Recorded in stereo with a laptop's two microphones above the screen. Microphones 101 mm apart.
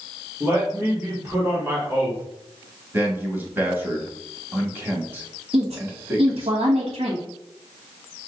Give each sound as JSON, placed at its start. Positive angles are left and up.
{"t": 0.4, "sound": "a man speaking", "side_deg": -20, "distance_m": 1.3}
{"t": 2.9, "sound": "a man speaking", "side_deg": -20, "distance_m": 1.4}
{"t": 5.5, "sound": "a woman speaking", "side_deg": -80, "distance_m": 1.3}